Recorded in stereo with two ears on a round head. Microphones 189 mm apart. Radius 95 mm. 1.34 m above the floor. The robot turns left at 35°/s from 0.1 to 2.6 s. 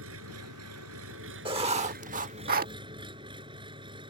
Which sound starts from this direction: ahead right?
Writing, at 1.4 s.